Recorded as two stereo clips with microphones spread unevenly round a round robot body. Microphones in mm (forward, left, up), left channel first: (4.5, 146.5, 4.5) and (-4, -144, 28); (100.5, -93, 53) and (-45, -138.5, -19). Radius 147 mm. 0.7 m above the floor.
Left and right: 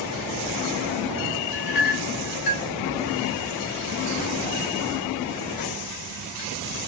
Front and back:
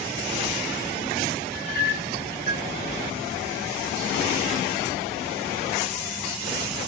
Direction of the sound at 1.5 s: 80° left.